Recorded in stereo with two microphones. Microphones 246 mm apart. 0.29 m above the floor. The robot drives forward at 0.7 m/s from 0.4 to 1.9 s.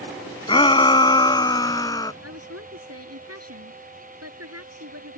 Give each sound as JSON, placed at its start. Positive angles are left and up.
{"t": 0.5, "sound": "a shout", "side_deg": 20}
{"t": 2.2, "sound": "a woman speaking", "side_deg": -75}